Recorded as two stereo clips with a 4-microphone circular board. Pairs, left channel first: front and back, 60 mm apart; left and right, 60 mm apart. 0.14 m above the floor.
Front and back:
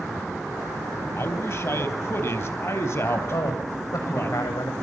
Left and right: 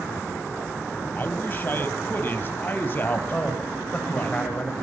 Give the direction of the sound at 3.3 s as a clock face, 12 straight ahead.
11 o'clock.